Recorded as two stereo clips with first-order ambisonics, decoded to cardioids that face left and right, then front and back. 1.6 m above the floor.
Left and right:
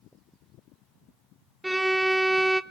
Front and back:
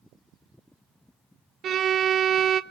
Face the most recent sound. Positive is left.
turn(degrees=-170)